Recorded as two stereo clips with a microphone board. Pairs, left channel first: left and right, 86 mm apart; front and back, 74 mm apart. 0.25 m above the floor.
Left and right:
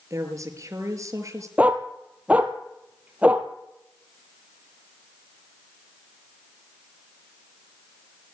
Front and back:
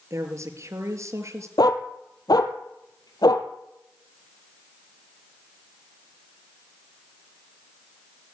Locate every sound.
0.1 s a woman speaking: 140° right, 5.5 m
1.6 s a dog barking: 15° right, 2.5 m